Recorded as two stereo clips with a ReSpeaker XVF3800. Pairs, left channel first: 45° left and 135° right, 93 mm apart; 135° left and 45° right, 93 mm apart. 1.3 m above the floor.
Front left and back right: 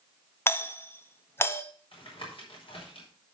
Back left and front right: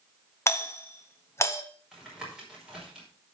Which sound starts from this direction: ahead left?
Tapping, at 1.9 s.